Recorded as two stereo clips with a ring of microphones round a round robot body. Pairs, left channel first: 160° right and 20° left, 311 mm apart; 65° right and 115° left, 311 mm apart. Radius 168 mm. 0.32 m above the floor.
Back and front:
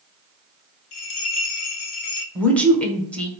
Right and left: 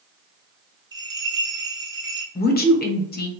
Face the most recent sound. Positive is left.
turn(degrees=-75)